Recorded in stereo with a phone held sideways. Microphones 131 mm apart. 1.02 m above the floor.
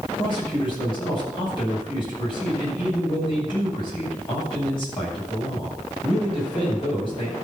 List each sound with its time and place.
0.2 s a man speaking: 40° left (ahead or behind), 6.5 m